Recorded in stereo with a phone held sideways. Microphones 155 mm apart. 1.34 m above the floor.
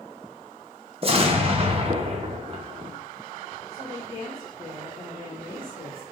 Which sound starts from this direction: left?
A woman speaking, at 3.7 s.